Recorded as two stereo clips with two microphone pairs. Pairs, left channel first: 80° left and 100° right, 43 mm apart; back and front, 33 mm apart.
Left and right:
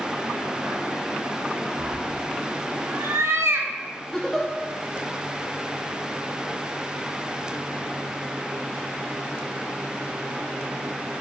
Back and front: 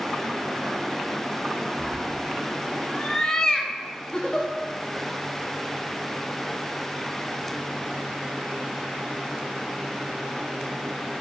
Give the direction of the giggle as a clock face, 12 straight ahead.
7 o'clock.